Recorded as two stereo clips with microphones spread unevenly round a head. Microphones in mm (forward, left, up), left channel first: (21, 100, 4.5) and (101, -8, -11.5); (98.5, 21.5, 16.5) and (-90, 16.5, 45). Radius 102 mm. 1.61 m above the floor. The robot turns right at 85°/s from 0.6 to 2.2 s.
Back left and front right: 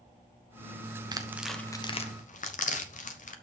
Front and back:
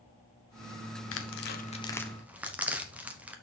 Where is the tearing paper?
5° left, 1.1 m; by 3.3 s 95° left, 1.1 m.